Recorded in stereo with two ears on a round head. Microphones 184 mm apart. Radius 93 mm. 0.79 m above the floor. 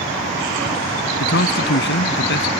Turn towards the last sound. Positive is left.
turn(degrees=65)  # may be behind; listen again after turning